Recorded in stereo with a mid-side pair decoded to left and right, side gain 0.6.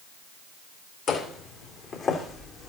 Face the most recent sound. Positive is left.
turn(degrees=30)